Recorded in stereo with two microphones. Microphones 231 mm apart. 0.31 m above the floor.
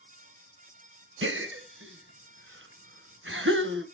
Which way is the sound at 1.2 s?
60° right (ahead or behind).